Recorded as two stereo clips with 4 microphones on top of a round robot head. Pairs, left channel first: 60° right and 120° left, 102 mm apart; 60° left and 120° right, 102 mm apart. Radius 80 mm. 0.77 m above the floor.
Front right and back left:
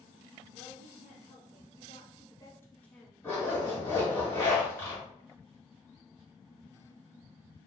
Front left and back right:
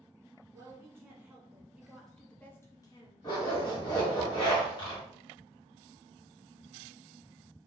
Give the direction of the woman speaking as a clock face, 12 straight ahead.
2 o'clock.